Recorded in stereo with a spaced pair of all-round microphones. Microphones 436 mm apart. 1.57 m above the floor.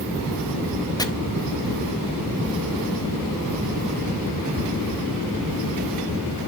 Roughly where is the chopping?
Centre.